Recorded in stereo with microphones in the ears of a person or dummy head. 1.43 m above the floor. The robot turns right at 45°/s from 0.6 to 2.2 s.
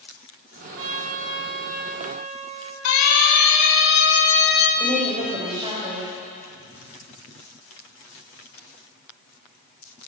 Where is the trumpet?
100° right, 3.5 m; by 2.8 s 35° right, 3.5 m.